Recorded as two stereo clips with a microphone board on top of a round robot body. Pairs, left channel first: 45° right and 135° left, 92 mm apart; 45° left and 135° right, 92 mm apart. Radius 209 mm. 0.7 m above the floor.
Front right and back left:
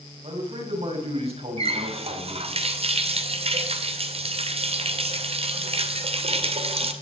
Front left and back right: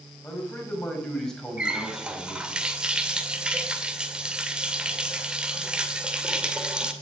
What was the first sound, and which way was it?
A man speaking, 120° left.